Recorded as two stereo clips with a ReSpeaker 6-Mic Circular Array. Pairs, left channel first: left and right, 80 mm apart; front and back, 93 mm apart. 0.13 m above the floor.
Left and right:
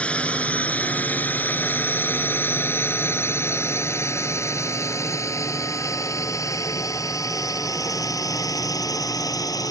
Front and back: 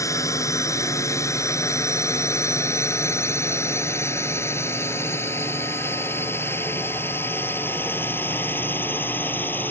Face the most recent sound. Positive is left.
turn(degrees=65)